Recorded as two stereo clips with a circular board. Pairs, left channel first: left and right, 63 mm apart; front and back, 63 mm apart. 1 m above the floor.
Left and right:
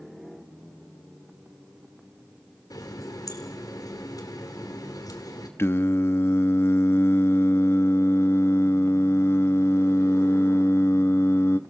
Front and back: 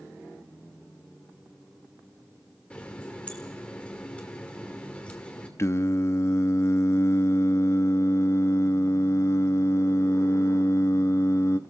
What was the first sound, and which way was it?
A running tap, 70° left.